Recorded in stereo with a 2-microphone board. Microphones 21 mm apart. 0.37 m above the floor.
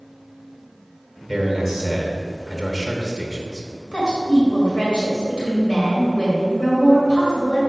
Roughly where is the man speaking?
Centre.